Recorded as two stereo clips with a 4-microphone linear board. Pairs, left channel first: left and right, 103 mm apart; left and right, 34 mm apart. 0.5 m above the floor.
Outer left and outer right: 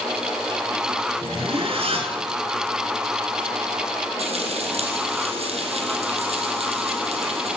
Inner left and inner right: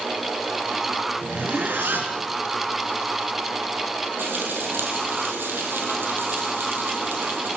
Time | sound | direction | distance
1.2 | a zipper | 65° right (ahead or behind) | 3 m
4.2 | frying | 80° right | 4 m